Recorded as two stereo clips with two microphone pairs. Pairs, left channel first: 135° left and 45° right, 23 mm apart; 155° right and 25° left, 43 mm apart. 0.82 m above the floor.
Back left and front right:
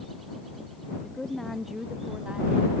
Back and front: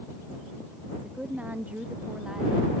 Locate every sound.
0.9 s a woman speaking: 75° left; by 2.7 s 55° right